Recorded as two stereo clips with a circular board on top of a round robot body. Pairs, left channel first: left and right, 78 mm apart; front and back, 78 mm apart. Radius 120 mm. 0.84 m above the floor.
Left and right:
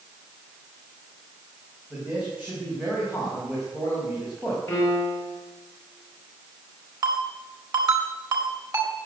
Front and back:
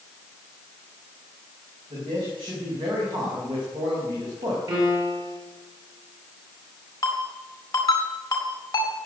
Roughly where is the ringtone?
Ahead right.